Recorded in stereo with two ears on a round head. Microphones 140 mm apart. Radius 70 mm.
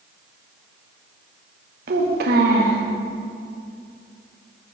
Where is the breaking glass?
No breaking glass in this recording.